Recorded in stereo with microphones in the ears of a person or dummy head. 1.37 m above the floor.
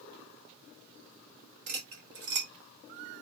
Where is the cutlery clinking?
50° right (ahead or behind), 0.8 m.